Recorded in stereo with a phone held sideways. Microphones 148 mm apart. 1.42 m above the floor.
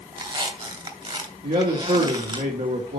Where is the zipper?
No zipper in this recording.